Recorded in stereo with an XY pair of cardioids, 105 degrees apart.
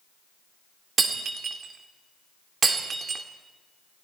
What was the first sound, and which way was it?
Breaking glass, 45° right.